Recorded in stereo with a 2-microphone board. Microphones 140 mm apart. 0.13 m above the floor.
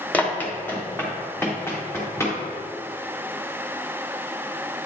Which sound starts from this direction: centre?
Running footsteps, at 0.1 s.